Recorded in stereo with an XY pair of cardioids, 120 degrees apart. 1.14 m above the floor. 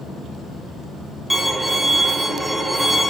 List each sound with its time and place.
1.3 s a violin: 5° right, 0.6 m